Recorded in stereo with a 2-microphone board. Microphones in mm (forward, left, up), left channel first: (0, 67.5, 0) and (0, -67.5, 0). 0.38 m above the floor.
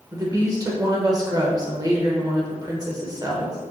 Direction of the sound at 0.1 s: 25° right (ahead or behind).